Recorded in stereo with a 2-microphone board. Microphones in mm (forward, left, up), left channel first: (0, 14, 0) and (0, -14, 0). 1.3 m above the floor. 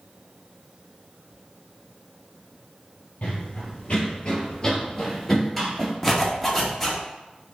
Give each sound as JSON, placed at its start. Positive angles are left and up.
{"t": 3.2, "sound": "running footsteps", "side_deg": 50, "distance_m": 2.0}
{"t": 6.0, "sound": "a zipper", "side_deg": 15, "distance_m": 1.0}